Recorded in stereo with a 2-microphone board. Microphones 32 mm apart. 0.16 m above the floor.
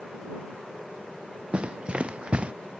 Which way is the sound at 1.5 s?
35° right (ahead or behind).